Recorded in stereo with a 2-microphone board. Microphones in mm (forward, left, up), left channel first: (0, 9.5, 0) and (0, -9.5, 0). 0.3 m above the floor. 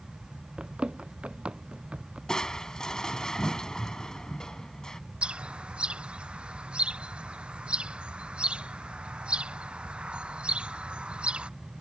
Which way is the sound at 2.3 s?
35° left (ahead or behind).